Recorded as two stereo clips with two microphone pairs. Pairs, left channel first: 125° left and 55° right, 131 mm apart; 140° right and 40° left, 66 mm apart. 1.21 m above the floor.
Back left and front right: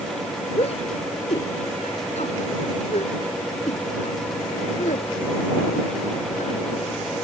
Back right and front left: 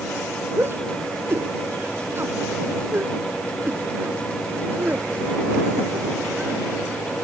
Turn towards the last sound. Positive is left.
turn(degrees=105)